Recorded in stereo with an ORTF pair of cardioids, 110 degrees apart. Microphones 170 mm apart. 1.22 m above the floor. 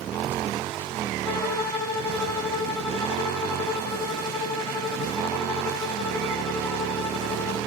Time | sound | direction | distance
1.2 | a violin | 30° left | 2 m